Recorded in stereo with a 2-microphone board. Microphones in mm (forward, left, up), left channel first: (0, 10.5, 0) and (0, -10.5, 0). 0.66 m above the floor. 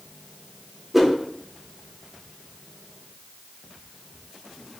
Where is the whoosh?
Centre (ahead or behind), 0.5 m.